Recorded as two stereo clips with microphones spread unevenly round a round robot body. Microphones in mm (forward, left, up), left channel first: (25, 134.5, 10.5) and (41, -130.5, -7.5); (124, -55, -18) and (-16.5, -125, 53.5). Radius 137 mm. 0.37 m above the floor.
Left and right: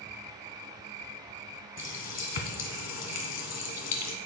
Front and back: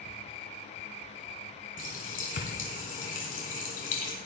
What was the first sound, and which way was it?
A running tap, 65° left.